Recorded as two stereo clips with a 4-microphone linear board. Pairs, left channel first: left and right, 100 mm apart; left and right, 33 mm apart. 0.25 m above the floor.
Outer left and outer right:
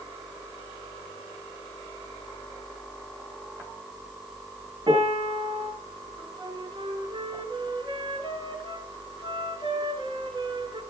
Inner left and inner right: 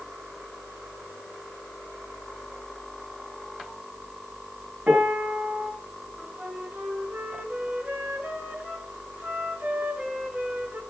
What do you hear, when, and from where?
4.9 s a piano: 55° right (ahead or behind), 3.5 m
6.2 s a flute: 55° right (ahead or behind), 3.5 m